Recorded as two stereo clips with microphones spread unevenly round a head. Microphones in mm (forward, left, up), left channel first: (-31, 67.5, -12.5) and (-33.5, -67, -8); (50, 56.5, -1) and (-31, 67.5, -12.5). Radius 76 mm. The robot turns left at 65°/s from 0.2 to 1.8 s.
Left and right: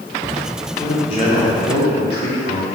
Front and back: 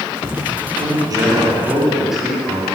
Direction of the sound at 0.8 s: 155° left.